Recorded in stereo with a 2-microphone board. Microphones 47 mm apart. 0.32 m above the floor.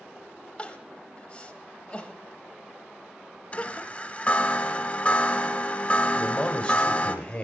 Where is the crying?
25° left (ahead or behind), 0.7 m.